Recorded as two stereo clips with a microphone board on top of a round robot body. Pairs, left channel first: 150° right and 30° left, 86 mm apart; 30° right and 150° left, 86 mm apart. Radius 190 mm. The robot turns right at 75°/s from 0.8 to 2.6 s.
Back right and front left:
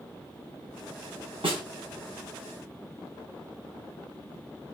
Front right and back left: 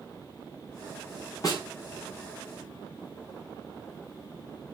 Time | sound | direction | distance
1.4 | a snare drum | 15° left | 3.5 m